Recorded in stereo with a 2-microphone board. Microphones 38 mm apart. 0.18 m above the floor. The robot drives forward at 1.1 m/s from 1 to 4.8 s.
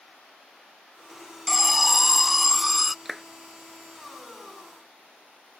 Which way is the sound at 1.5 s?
5° right (ahead or behind).